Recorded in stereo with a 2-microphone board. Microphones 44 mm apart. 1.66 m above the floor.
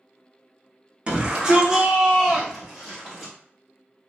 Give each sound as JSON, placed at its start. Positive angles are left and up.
{"t": 1.1, "sound": "a shout", "side_deg": -25, "distance_m": 0.8}